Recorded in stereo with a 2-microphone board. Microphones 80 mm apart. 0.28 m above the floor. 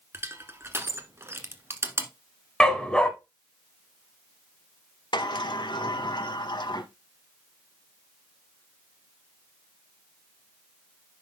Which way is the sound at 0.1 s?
30° right (ahead or behind).